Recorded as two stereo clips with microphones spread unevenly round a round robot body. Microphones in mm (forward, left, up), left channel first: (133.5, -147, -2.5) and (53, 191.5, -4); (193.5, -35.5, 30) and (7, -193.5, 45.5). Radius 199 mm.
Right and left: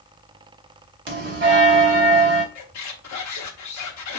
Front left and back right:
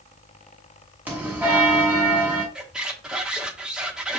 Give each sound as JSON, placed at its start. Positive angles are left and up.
{"t": 1.1, "sound": "a bell", "azimuth_deg": 135, "distance_m": 0.9}
{"t": 2.5, "sound": "a squeak", "azimuth_deg": -50, "distance_m": 1.0}